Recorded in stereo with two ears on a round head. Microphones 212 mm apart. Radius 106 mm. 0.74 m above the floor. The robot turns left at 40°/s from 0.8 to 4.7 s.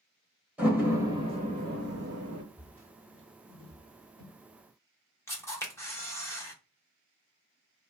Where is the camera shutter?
10° left (ahead or behind), 1.0 m.